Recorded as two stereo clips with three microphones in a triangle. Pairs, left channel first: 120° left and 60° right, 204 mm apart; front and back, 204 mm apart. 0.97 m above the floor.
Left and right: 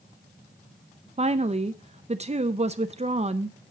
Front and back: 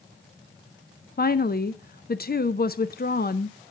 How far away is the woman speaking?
About 0.5 m.